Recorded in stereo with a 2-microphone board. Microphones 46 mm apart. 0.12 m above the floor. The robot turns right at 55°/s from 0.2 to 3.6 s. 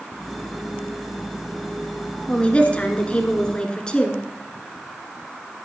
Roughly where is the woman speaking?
Left.